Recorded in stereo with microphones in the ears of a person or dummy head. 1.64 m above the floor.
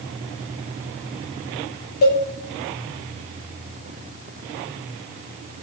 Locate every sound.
2.0 s a cowbell: 50° left (ahead or behind), 0.7 m